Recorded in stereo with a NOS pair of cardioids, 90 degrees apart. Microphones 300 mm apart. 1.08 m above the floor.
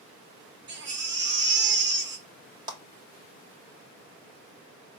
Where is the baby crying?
40° right, 1.1 m.